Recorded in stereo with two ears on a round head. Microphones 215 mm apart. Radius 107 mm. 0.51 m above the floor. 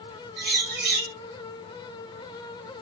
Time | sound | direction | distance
0.4 | a bird | 45° right (ahead or behind) | 2.5 m